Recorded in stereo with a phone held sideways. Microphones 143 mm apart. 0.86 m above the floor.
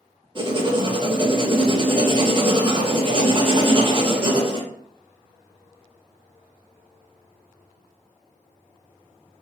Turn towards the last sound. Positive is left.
turn(degrees=-35)  # may be behind; listen again after turning